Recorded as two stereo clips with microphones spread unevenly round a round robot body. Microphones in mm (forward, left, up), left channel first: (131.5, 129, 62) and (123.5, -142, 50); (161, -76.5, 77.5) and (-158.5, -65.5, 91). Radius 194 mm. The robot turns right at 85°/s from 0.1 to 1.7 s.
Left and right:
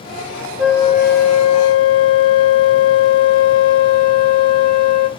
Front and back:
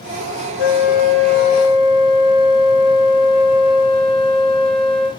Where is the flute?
5° right, 0.7 m; by 5.1 s 90° left, 0.7 m.